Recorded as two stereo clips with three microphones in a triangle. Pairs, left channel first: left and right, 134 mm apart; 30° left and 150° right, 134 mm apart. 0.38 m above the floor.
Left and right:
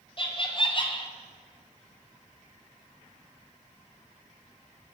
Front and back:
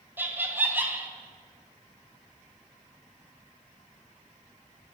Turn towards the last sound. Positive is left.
turn(degrees=135)